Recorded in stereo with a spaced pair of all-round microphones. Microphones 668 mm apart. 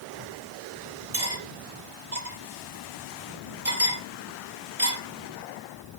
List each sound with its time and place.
1.1 s cutlery clinking: 60° right (ahead or behind), 2.5 m